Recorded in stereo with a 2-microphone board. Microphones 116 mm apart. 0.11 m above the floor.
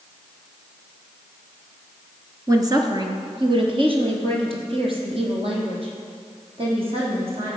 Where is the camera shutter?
No camera shutter in this recording.